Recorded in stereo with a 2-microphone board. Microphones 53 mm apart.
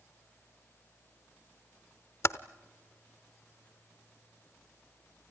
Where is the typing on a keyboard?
60° left (ahead or behind), 0.7 m.